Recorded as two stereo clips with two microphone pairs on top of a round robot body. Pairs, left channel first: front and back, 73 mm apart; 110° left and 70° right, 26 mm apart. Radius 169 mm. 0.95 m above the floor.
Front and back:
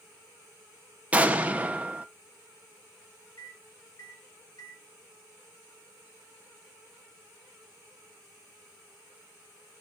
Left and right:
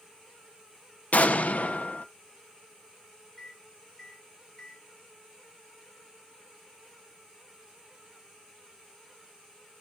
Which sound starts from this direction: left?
An explosion, at 1.1 s.